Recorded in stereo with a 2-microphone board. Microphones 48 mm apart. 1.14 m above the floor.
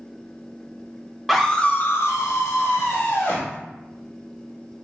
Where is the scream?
Centre (ahead or behind), 1.0 m; by 3.5 s 65° left (ahead or behind), 2.5 m.